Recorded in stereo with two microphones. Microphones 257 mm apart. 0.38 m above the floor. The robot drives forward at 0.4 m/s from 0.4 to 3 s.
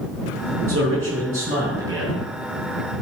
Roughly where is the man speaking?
Right.